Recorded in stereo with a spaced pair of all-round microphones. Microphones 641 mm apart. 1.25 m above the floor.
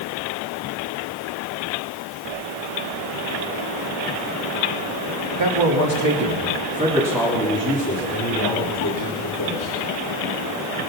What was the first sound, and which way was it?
A man speaking, 45° right (ahead or behind).